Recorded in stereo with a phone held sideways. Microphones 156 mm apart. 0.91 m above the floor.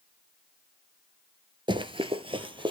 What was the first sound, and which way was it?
Running footsteps, 30° right (ahead or behind).